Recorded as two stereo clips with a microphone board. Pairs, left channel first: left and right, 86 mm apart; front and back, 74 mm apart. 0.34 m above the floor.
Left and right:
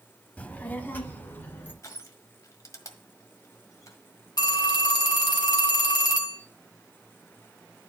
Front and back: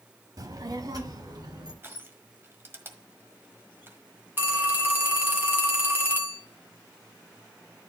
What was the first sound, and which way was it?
A child speaking, 160° left.